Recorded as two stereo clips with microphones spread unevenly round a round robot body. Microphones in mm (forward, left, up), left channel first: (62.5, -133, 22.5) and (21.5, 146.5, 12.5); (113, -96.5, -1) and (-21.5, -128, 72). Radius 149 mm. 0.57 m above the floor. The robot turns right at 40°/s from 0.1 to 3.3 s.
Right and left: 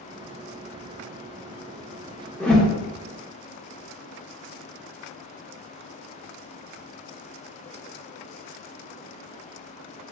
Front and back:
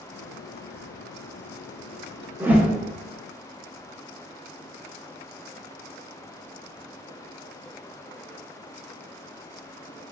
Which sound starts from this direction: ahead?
A whoosh, at 2.4 s.